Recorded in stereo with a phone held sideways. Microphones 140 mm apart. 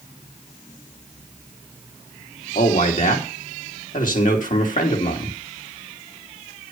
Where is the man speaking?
70° left (ahead or behind), 3 m.